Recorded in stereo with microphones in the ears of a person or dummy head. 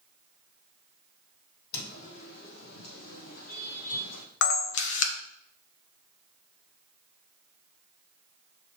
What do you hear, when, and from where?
1.7 s footsteps: 55° left (ahead or behind), 3 m; by 4.2 s 45° left (ahead or behind), 2.5 m
4.4 s a camera shutter: 65° left (ahead or behind), 1.3 m